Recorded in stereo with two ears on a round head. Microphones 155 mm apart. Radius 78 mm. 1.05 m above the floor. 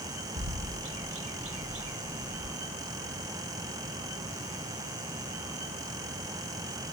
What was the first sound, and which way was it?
A bird, 75° right (ahead or behind).